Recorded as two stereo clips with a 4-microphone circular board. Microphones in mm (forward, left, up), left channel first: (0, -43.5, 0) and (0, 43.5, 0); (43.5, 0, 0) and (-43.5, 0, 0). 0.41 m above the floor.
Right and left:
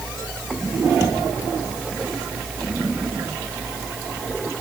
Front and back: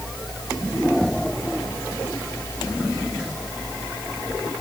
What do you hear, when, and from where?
Only background noise.